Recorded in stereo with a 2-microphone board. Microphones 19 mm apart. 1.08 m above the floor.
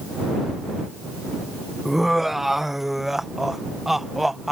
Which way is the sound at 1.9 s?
10° right (ahead or behind).